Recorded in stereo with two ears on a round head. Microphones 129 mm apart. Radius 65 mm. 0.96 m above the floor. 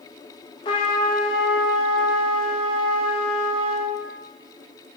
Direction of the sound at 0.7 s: 30° left (ahead or behind).